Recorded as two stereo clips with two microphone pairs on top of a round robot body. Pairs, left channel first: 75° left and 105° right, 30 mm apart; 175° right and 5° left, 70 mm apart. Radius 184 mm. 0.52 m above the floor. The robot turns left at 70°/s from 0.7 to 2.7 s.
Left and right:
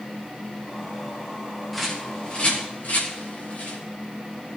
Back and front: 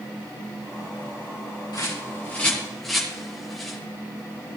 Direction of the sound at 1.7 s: 170° left.